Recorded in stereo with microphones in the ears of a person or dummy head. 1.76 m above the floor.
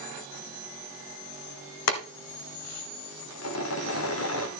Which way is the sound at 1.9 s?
75° left (ahead or behind).